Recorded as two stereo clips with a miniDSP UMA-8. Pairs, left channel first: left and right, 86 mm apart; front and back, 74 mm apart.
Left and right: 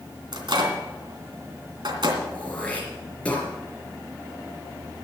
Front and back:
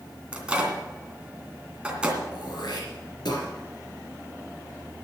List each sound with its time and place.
0.3 s a microwave: 105° right, 2.5 m
2.3 s throat clearing: 15° left, 4.5 m